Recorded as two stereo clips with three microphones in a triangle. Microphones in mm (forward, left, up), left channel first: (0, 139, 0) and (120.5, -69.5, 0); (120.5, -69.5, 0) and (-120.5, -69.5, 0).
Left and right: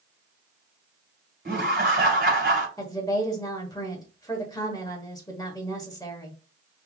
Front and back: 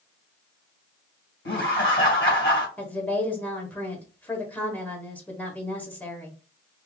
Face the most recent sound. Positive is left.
turn(degrees=70)